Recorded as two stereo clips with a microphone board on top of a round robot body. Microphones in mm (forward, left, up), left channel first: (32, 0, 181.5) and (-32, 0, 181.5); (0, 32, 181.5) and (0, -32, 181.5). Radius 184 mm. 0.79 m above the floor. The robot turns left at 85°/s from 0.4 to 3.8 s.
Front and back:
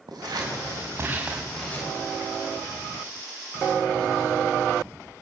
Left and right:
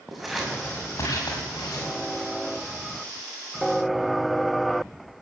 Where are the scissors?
Straight behind, 6 m; by 2.0 s 45° left, 6 m.